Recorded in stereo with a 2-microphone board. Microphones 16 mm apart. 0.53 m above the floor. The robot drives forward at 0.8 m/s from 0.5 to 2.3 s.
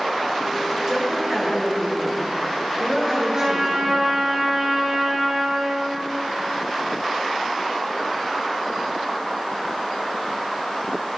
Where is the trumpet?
35° right (ahead or behind), 8.5 m.